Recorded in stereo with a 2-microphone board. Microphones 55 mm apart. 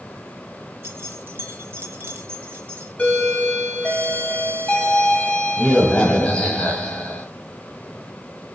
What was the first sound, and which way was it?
Keys jangling, 35° right (ahead or behind).